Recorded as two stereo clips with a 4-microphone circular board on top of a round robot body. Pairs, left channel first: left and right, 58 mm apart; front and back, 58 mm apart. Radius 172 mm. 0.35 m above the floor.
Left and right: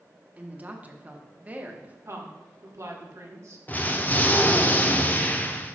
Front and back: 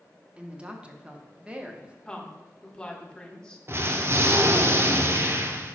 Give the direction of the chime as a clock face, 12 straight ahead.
I don't hear a chime.